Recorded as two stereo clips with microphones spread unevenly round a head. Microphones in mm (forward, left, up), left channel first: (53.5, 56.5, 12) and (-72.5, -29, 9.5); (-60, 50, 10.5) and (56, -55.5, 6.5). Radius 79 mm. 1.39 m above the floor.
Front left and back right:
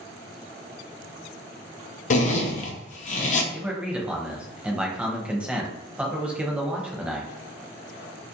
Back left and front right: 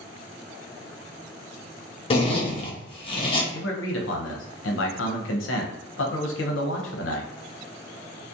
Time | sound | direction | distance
2.1 | a zipper | 80° left | 0.5 m
3.5 | a man speaking | 130° left | 0.6 m